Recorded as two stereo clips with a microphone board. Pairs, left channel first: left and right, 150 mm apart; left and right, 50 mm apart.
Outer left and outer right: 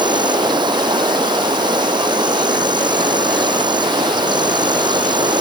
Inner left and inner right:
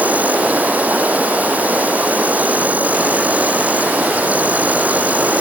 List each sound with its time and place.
0.0 s an insect: 30° right (ahead or behind)